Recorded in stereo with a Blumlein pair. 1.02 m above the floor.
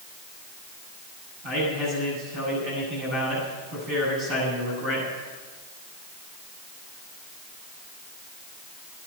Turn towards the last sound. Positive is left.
turn(degrees=-40)